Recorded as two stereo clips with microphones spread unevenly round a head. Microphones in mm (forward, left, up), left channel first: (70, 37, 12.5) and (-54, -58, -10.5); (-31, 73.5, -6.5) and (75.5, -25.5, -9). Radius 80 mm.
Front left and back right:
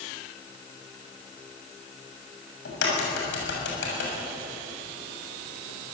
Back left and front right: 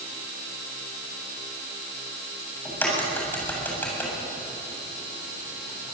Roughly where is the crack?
Ahead left.